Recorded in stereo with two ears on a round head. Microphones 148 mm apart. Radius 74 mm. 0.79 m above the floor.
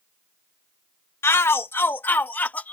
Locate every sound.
1.2 s a shout: 15° left (ahead or behind); by 2.7 s 10° left (ahead or behind)